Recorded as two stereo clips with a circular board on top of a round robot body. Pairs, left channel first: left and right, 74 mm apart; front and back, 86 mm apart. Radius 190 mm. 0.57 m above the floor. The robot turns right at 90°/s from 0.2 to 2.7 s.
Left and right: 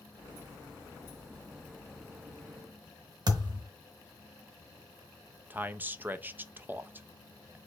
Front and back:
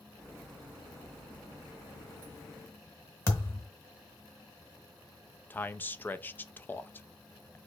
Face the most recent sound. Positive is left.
turn(degrees=-50)